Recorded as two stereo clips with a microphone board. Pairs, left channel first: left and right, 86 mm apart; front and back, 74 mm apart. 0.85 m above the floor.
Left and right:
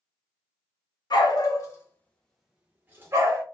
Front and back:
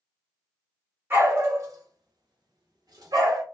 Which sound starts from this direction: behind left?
A dog barking, at 1.1 s.